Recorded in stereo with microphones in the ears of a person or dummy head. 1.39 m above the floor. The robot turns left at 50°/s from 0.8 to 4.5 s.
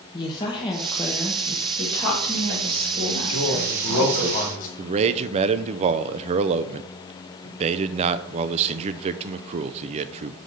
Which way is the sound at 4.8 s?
35° right (ahead or behind).